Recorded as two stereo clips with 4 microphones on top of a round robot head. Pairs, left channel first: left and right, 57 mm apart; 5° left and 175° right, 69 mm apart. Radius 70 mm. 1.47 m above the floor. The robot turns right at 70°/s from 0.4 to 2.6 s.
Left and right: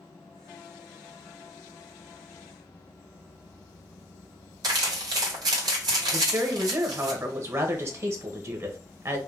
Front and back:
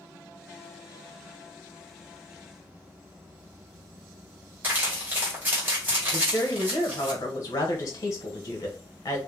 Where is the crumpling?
105° right, 1.7 m.